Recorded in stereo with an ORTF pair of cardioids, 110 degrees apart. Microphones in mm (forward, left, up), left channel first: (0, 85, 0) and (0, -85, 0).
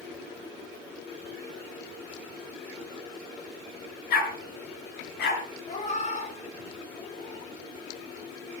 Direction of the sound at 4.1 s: 70° left.